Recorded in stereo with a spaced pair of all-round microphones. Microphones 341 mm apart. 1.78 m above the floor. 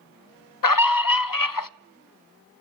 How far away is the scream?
About 0.5 m.